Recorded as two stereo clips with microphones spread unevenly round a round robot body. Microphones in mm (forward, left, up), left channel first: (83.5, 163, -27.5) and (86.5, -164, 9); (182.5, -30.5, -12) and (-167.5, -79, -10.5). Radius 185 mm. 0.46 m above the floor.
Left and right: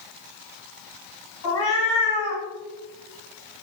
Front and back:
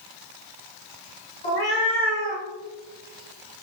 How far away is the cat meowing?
About 1.7 m.